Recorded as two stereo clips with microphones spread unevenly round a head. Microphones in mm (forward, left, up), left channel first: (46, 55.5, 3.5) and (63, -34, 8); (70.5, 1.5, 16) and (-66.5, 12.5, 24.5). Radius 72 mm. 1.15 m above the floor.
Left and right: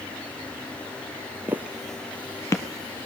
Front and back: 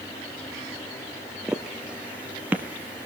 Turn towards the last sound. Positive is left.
turn(degrees=105)